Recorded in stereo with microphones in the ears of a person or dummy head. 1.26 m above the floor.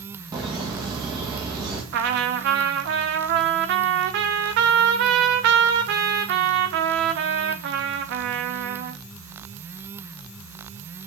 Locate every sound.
0.3 s laughter: 20° right (ahead or behind), 1.8 m
1.9 s a trumpet: 65° right (ahead or behind), 1.1 m